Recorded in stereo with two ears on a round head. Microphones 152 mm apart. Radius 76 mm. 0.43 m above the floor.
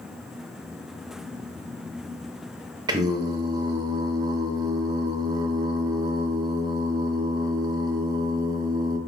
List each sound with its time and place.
2.9 s singing: 20° right (ahead or behind), 0.5 m